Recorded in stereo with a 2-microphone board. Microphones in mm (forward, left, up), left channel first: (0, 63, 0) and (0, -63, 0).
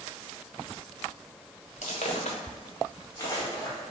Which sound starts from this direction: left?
Footsteps, at 1.8 s.